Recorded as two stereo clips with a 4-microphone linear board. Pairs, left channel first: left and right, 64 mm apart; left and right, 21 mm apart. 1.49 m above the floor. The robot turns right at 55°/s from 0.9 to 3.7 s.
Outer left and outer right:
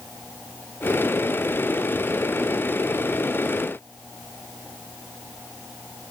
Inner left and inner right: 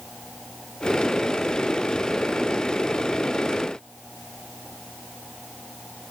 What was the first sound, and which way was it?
Only background noise.